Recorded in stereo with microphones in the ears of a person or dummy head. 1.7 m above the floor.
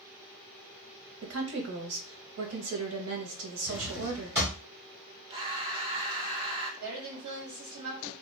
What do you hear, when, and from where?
1.2 s a woman speaking: 70° right (ahead or behind), 0.9 m
3.7 s a drawer: 15° right (ahead or behind), 1.4 m
5.3 s breathing: 25° right (ahead or behind), 0.6 m
6.8 s a woman speaking: 75° right (ahead or behind), 1.9 m